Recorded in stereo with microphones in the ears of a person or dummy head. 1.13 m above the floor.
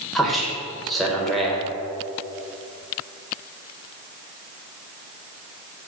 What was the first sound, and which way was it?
A man speaking, 5° right (ahead or behind).